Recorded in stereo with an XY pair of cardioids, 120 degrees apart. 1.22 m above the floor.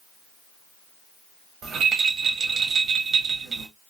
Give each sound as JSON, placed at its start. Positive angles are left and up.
{"t": 1.6, "sound": "a rattle", "azimuth_deg": -50, "distance_m": 1.3}